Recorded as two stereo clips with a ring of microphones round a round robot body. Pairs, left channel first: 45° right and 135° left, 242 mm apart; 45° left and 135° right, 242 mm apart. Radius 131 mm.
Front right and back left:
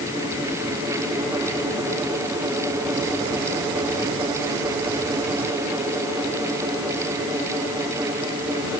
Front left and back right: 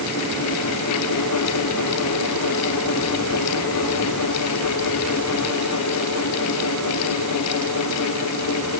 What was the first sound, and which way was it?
Only background noise.